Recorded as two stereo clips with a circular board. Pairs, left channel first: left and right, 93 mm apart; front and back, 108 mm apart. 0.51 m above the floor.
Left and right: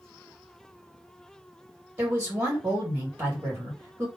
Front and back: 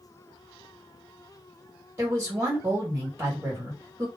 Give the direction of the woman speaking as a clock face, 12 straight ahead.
5 o'clock.